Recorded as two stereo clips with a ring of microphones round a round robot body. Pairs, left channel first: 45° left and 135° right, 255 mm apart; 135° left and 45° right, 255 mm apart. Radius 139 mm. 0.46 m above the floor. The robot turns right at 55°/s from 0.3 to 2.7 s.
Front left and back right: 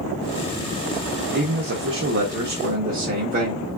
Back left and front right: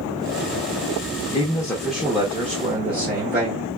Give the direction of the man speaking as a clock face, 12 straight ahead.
5 o'clock.